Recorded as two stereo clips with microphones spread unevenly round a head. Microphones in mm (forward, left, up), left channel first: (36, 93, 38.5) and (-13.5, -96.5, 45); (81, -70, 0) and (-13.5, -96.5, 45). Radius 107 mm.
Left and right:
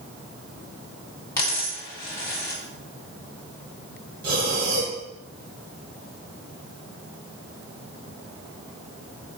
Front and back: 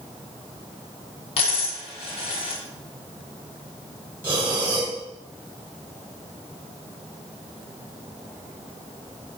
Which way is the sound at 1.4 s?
5° left.